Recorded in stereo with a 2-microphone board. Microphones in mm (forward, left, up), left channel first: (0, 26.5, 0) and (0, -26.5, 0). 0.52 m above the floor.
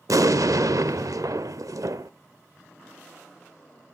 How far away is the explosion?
About 0.7 m.